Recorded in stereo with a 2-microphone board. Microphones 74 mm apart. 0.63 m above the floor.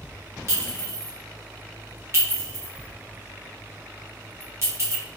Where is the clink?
40° right (ahead or behind), 1.0 m.